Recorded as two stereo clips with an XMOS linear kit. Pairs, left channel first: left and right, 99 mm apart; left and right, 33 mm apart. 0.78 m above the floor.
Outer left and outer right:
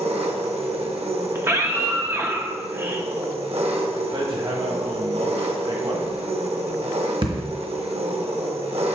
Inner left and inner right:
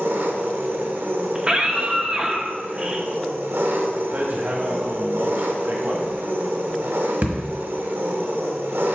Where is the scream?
25° right (ahead or behind), 1.0 m.